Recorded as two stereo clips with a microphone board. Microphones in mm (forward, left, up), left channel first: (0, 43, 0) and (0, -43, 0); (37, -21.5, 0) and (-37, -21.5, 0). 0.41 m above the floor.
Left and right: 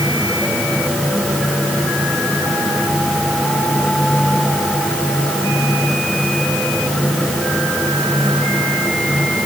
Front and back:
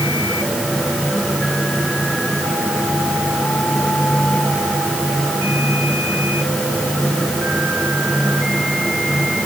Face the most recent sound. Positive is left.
No sound to turn to.